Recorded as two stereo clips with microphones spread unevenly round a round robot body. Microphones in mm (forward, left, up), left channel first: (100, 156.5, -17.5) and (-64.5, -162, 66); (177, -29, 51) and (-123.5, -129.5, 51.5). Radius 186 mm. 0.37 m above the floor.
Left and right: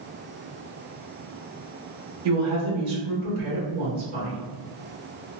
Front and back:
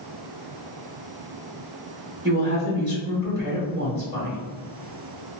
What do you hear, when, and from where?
2.2 s a woman speaking: 110° right, 1.7 m